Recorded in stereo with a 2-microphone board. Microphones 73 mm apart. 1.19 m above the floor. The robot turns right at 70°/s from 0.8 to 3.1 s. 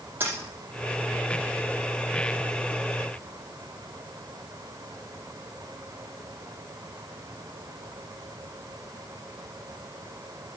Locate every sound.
0.2 s a dropped coin: 25° right (ahead or behind), 5.5 m